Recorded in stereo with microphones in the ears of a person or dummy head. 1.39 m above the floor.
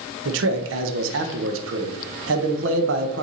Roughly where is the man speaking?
Right.